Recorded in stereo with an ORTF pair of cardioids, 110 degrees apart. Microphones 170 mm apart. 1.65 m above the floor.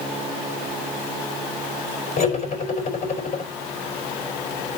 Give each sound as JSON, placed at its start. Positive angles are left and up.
{"t": 2.2, "sound": "cutlery clinking", "azimuth_deg": 45, "distance_m": 4.5}